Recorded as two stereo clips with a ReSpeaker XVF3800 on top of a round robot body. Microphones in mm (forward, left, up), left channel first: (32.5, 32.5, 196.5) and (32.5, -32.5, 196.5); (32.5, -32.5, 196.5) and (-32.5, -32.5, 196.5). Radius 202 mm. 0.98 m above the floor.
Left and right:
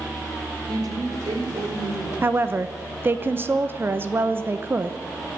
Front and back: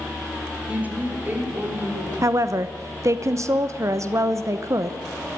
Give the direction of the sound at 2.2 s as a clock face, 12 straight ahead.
5 o'clock.